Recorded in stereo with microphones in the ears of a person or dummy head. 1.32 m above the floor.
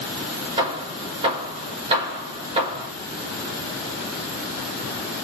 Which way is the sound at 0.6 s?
30° right (ahead or behind).